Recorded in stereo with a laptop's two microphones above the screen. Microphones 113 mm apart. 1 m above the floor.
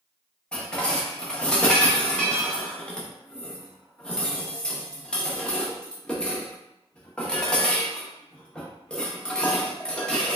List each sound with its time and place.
0.5 s dishes clattering: 10° left (ahead or behind), 0.8 m